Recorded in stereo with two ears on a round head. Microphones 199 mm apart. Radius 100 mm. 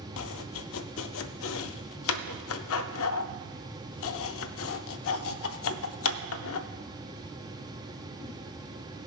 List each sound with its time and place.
0.2 s chopping: 65° left (ahead or behind), 0.5 m